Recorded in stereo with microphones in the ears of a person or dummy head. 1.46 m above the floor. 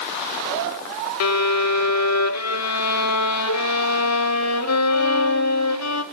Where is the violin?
75° left (ahead or behind), 1.8 m.